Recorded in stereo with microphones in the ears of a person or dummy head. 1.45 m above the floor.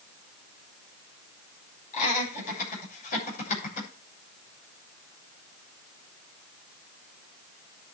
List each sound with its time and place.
1.9 s laughter: 45° left (ahead or behind), 8 m